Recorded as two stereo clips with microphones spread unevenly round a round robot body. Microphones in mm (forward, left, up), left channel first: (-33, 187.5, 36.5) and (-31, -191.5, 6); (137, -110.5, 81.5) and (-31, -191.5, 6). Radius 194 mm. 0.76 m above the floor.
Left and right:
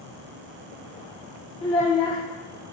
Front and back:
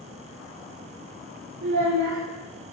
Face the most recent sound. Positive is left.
turn(degrees=170)